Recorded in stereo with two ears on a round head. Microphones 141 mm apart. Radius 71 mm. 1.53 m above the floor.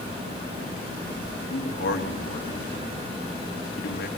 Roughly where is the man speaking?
Left.